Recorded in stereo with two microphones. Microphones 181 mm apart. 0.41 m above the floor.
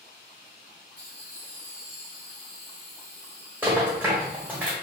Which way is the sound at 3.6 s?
10° right (ahead or behind).